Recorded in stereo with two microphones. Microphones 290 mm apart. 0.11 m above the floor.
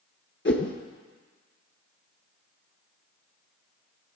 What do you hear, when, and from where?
0.5 s a whoosh: 45° left (ahead or behind), 0.6 m